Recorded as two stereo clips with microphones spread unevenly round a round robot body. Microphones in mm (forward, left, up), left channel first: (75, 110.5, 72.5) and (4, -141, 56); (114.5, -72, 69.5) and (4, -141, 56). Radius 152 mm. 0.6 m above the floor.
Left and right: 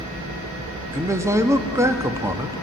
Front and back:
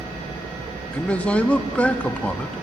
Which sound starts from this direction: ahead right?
A man speaking, at 0.9 s.